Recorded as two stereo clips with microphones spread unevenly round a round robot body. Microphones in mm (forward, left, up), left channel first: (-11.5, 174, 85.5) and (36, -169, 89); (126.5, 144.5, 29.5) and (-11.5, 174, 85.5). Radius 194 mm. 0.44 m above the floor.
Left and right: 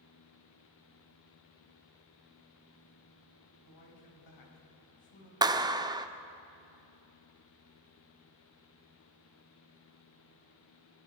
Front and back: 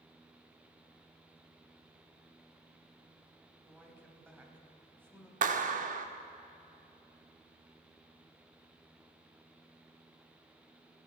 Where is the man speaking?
85° left, 4 m.